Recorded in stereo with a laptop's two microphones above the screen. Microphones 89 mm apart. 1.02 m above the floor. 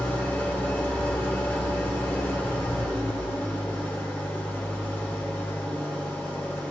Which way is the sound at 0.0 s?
25° left (ahead or behind).